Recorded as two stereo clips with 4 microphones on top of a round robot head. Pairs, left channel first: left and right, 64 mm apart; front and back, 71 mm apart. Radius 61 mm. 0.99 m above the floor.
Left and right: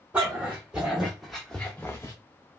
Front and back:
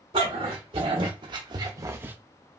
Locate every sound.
0.1 s a dog barking: 165° right, 1.2 m; by 2.1 s 135° left, 0.5 m